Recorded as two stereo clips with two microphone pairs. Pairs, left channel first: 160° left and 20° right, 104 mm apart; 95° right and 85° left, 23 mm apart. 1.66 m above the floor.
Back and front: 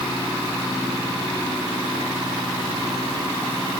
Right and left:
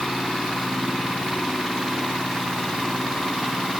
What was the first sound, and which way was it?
Only background noise.